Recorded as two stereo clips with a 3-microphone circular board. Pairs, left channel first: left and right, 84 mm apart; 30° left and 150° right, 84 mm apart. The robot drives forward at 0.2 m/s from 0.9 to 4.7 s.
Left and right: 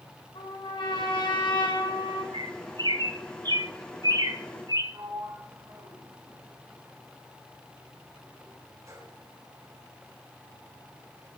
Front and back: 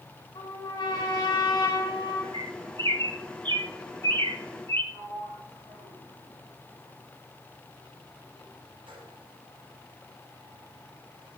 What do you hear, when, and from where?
0.3 s a trumpet: 70° left, 5 m; by 2.2 s 75° left, 5 m
2.3 s a bird: 115° right, 1.1 m; by 4.8 s 135° right, 1.4 m
4.9 s a sliding door: 145° right, 4.5 m